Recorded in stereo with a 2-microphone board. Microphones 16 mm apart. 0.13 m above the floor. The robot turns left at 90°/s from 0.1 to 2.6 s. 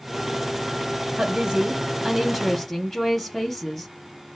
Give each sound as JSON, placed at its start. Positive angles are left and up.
{"t": 1.2, "sound": "a woman speaking", "azimuth_deg": -80, "distance_m": 3.0}